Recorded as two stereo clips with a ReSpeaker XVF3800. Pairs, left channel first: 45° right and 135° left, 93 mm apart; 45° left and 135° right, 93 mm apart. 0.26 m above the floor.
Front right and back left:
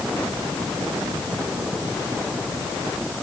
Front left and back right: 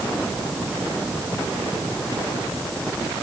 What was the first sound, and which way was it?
Only background noise.